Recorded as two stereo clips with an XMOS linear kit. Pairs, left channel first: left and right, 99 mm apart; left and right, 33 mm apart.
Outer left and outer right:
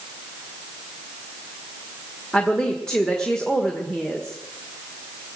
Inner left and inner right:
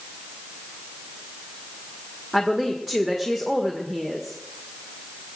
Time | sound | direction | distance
2.3 | a woman speaking | 5° left (ahead or behind) | 1.6 m